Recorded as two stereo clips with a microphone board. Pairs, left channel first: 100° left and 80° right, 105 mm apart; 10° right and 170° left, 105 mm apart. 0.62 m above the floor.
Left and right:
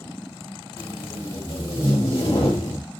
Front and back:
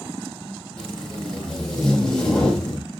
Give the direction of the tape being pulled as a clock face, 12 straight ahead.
10 o'clock.